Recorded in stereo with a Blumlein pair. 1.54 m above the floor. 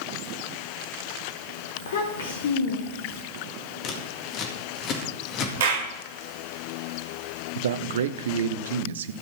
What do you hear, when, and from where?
1.8 s a child speaking: 60° left, 1.7 m
3.8 s scissors: 35° left, 2 m
5.6 s a clap: 60° right, 2.5 m
7.5 s a man speaking: 60° right, 0.7 m